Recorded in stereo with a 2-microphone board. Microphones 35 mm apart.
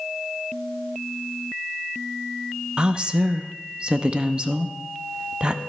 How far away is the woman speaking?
About 0.7 m.